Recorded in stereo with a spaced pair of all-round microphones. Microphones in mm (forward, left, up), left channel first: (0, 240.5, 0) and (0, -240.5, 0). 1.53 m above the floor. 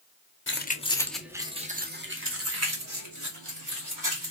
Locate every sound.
0.5 s keys jangling: 25° left (ahead or behind), 0.7 m; by 4.3 s 40° right (ahead or behind), 2.0 m